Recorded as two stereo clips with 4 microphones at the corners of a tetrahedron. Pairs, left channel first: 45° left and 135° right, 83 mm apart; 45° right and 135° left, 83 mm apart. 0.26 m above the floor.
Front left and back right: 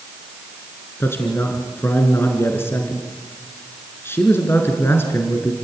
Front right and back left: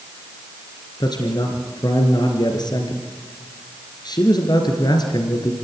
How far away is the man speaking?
About 3.5 m.